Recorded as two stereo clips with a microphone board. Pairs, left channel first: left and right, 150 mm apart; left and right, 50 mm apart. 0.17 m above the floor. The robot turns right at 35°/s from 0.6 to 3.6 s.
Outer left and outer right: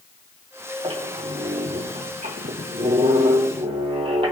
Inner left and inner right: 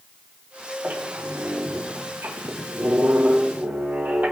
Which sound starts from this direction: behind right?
A squeak, at 0.8 s.